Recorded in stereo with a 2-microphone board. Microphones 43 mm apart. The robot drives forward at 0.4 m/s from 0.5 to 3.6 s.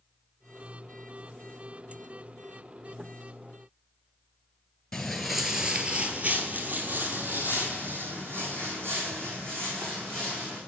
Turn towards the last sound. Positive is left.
turn(degrees=-75)  # may be behind; listen again after turning